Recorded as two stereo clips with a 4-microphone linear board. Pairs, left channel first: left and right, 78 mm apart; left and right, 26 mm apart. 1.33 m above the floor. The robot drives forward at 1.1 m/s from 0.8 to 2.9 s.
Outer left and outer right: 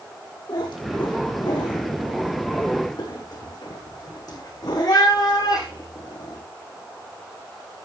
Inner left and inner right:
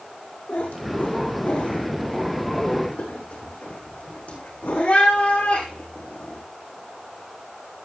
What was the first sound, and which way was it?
A cat meowing, 75° left (ahead or behind).